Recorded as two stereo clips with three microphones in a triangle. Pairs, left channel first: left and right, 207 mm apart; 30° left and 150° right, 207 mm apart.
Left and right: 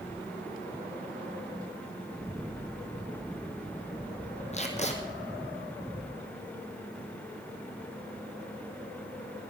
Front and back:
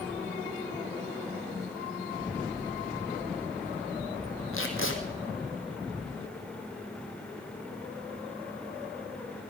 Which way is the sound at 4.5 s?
35° left.